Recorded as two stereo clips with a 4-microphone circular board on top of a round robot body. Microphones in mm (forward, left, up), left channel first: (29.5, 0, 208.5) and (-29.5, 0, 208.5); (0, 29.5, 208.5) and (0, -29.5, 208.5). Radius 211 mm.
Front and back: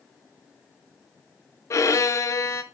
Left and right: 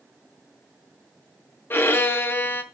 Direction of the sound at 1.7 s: 35° left.